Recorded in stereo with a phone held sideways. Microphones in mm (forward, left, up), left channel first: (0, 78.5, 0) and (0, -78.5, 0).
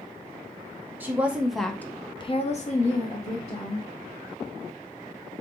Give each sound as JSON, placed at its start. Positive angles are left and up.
{"t": 1.0, "sound": "a woman speaking", "side_deg": -10, "distance_m": 1.0}